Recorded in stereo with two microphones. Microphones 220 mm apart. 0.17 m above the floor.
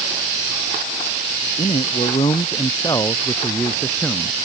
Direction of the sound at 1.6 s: 30° left (ahead or behind).